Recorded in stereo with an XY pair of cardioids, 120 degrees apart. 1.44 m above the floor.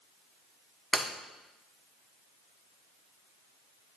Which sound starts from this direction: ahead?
Breaking glass, at 0.9 s.